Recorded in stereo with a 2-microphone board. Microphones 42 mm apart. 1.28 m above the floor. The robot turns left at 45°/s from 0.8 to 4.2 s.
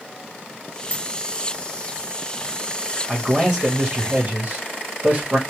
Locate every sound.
0.9 s a dropped coin: 55° left (ahead or behind), 3 m; by 1.0 s 50° left (ahead or behind), 3 m
3.1 s a man speaking: straight ahead, 1.7 m; by 5.4 s 50° right, 1.7 m